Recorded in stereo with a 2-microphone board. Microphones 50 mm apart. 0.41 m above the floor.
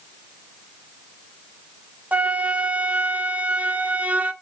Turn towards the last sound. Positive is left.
turn(degrees=-35)  # may be behind; listen again after turning